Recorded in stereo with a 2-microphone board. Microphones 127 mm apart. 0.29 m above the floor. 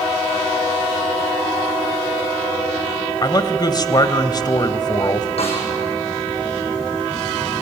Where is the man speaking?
35° left (ahead or behind), 1.2 m.